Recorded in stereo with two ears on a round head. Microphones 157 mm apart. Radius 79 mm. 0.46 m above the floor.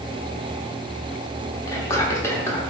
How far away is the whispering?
About 0.8 m.